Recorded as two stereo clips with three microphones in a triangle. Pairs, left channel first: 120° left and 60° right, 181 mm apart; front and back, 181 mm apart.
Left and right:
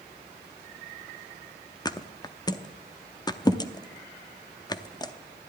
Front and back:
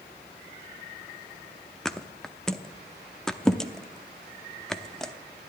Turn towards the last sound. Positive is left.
turn(degrees=85)